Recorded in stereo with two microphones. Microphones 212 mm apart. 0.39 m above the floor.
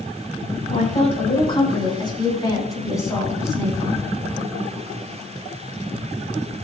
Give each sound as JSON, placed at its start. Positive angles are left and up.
{"t": 0.7, "sound": "a woman speaking", "side_deg": 30, "distance_m": 3.5}